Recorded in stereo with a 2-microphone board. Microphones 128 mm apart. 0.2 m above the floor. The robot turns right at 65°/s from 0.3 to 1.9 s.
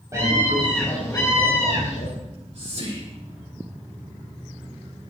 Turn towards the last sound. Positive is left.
turn(degrees=-50)  # may be behind; listen again after turning